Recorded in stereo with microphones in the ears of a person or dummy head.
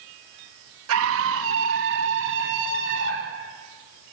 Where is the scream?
80° right, 2.0 m; by 3.4 s 60° right (ahead or behind), 4.5 m.